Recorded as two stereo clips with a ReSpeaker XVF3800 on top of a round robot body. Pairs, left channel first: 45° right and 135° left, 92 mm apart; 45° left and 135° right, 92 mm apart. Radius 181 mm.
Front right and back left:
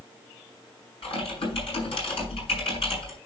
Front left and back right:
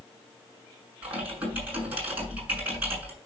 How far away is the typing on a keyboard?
About 5.5 m.